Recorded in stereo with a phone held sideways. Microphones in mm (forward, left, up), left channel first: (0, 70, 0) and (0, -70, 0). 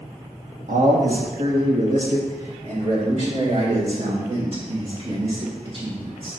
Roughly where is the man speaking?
Right.